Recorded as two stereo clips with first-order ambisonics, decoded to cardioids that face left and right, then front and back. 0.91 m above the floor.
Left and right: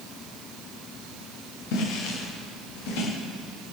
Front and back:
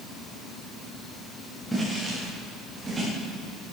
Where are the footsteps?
90° left, 7.5 m; by 3.1 s 100° left, 7.5 m.